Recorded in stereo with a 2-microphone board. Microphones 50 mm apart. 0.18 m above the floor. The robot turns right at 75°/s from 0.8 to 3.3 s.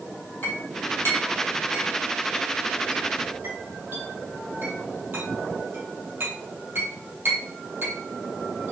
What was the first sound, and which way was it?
A clink, 35° left (ahead or behind).